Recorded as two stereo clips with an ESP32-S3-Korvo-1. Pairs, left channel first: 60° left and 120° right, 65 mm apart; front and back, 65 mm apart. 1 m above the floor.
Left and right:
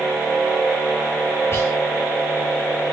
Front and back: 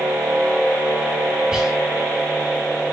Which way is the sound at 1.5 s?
105° left.